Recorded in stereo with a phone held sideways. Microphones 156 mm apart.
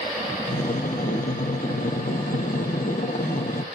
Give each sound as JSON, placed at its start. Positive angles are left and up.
{"t": 0.5, "sound": "breathing", "side_deg": 60, "distance_m": 1.2}